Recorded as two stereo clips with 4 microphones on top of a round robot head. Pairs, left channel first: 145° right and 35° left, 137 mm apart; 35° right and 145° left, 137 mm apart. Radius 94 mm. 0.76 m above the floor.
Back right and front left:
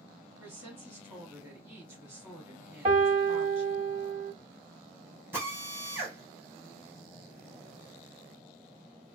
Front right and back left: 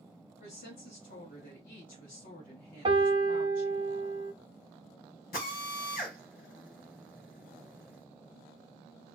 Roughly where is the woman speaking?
Ahead right.